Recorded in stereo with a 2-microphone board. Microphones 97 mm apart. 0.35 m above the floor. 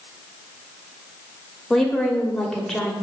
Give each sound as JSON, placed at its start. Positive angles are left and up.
{"t": 1.7, "sound": "a woman speaking", "side_deg": 5, "distance_m": 1.4}